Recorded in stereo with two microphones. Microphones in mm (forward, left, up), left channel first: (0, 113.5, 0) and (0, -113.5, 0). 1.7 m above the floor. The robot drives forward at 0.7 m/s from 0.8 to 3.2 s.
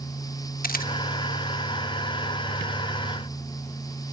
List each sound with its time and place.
0.6 s a camera shutter: 40° left (ahead or behind), 1.3 m